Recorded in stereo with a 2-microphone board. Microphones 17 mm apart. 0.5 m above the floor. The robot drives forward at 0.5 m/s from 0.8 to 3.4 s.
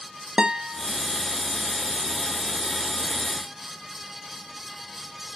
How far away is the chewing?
No chewing in this recording.